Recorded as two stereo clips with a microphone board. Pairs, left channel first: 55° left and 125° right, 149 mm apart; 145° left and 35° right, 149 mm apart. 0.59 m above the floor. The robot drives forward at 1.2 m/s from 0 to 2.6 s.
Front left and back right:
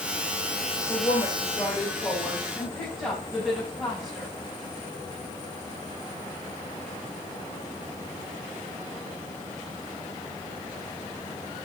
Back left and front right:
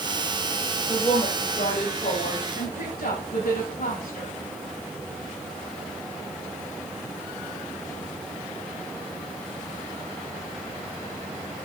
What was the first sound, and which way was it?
A woman speaking, 100° left.